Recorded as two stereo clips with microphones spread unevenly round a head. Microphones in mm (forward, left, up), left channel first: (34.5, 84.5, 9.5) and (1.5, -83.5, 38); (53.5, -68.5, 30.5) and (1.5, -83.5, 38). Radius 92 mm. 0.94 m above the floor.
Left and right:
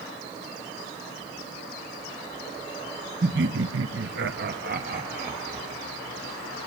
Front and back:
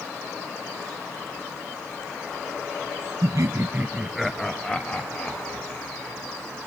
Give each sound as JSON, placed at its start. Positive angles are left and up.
{"t": 3.2, "sound": "laughter", "azimuth_deg": -140, "distance_m": 0.7}